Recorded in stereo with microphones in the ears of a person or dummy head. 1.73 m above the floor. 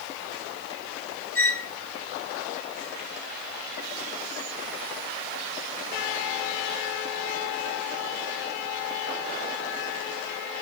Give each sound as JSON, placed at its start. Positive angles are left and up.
{"t": 1.4, "sound": "a squeak", "side_deg": 15, "distance_m": 1.7}